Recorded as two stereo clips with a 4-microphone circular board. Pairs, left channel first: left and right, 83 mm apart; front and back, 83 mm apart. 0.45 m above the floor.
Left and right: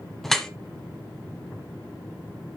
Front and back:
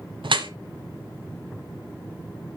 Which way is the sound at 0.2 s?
175° left.